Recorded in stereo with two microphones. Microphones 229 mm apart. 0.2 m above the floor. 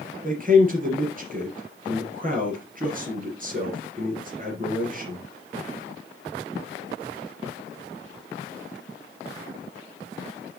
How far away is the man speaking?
About 3 m.